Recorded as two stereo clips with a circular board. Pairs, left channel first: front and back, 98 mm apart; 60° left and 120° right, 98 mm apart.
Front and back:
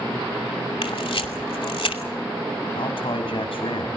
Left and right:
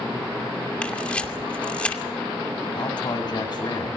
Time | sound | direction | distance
0.8 | a camera shutter | 15° right | 2.5 m
2.8 | a man speaking | 20° left | 5.5 m